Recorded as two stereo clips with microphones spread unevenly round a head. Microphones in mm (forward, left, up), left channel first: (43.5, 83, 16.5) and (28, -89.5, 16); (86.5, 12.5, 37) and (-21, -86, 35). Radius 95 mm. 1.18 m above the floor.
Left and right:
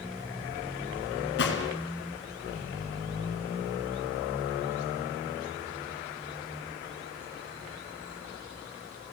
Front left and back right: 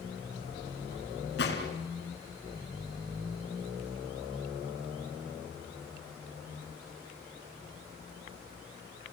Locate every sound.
1.4 s a gunshot: 75° left, 3.5 m